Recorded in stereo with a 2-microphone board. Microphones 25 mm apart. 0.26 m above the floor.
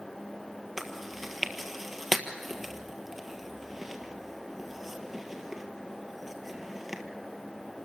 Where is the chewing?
15° right (ahead or behind), 1.5 m.